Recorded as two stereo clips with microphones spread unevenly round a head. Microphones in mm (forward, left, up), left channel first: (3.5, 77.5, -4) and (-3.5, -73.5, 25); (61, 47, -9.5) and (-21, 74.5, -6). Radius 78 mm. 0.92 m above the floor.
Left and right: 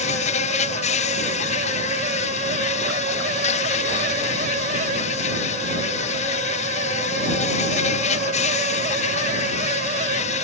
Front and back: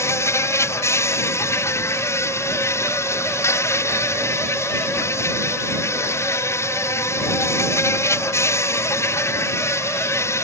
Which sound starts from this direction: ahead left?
An insect, at 0.0 s.